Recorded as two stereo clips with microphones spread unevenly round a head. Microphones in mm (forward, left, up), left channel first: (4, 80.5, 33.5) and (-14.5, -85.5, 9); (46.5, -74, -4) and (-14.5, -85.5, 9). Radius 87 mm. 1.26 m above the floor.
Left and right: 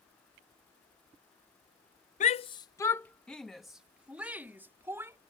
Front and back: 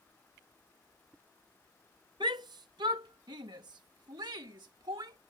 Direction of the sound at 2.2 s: 130° left.